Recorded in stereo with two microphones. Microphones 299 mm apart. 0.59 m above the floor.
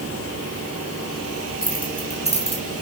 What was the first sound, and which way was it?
Keys jangling, 30° left (ahead or behind).